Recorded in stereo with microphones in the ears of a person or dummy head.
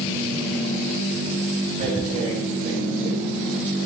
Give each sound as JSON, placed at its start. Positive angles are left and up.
{"t": 1.8, "sound": "tearing paper", "side_deg": -35, "distance_m": 6.0}